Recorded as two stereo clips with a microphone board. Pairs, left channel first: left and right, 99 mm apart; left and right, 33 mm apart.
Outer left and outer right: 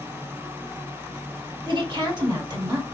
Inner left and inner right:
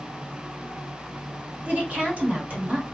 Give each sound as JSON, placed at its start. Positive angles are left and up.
{"t": 1.6, "sound": "a woman speaking", "side_deg": -50, "distance_m": 1.4}